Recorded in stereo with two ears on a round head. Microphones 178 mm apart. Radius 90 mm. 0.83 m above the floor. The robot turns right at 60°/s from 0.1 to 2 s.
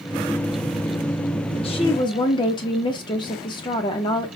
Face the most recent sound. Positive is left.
turn(degrees=25)  # may be behind; listen again after turning